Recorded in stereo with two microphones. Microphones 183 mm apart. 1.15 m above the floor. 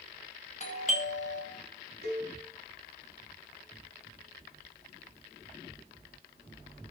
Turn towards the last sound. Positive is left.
turn(degrees=-60)  # may be behind; listen again after turning